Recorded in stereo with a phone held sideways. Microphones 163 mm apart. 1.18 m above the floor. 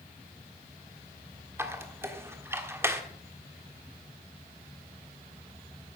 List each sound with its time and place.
1.6 s a squeak: 15° right (ahead or behind), 1.3 m